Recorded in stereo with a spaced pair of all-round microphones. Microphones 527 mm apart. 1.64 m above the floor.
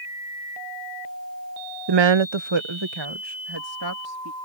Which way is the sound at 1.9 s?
45° right (ahead or behind).